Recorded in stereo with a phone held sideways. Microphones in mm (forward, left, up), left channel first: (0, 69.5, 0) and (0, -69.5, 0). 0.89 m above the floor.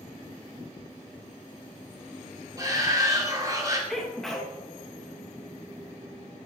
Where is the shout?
25° right (ahead or behind), 2.5 m.